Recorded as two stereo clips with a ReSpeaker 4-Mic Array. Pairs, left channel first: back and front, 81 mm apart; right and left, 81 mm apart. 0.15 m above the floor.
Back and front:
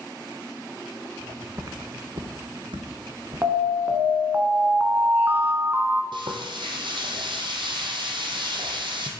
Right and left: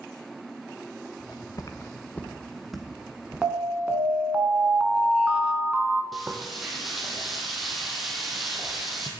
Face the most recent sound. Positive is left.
turn(degrees=0)